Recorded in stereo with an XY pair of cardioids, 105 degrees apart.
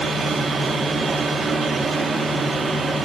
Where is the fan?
35° right, 1.7 m.